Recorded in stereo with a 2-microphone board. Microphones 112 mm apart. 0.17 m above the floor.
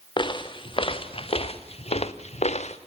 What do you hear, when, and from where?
0.2 s footsteps: 45° left (ahead or behind), 2 m; by 2.8 s 85° left, 1.2 m